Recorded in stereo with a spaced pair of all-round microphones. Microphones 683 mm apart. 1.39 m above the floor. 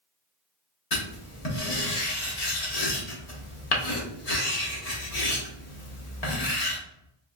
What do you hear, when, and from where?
0.9 s writing: 60° left (ahead or behind), 1.1 m